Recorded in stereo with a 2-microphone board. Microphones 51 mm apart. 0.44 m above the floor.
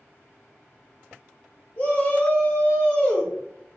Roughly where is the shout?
Left.